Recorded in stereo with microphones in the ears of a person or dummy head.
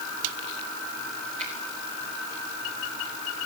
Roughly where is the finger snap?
Right.